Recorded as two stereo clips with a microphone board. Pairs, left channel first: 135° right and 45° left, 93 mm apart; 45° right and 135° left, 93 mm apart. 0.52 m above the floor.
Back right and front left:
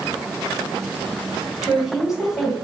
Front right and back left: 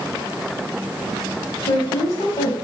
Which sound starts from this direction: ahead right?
A woman speaking, at 1.6 s.